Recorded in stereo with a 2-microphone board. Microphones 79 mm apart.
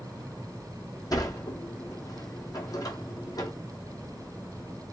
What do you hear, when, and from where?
1.1 s a sliding door: 50° left (ahead or behind), 1.3 m